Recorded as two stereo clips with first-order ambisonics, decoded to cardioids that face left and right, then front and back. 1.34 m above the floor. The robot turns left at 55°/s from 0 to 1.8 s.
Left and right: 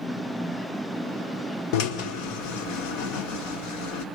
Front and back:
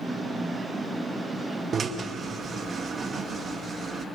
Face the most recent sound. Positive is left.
turn(degrees=110)